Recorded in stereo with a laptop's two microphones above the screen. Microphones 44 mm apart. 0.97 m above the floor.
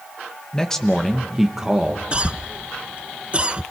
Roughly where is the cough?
Right.